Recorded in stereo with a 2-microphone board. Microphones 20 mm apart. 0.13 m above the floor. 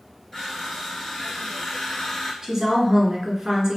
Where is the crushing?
15° left (ahead or behind), 1.3 m.